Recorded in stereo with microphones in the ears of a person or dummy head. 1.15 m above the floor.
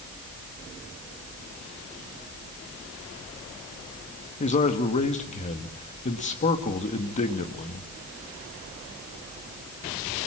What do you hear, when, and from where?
4.4 s a man speaking: 35° left (ahead or behind), 1.6 m